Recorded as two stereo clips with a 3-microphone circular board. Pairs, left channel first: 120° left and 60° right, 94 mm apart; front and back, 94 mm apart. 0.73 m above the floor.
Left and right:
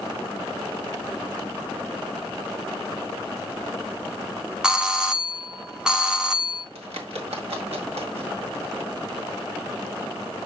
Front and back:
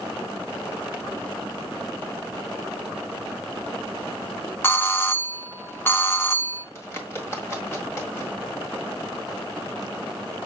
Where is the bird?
65° right, 1.7 m.